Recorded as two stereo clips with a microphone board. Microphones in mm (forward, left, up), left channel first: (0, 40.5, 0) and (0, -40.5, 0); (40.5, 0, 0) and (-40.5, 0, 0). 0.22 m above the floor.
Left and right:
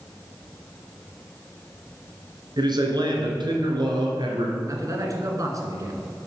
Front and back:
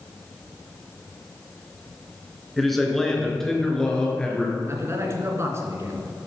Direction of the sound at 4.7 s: 130° right.